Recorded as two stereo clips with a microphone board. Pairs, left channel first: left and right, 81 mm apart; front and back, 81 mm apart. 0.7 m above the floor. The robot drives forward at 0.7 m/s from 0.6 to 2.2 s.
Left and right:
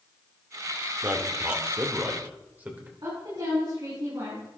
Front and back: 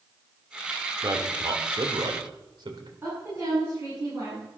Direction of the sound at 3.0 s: 120° right.